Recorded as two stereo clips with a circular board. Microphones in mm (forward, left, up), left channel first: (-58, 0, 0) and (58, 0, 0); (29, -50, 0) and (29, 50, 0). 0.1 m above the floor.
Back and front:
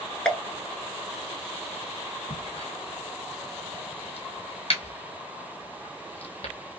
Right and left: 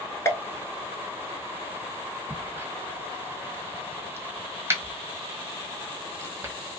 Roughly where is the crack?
Behind left.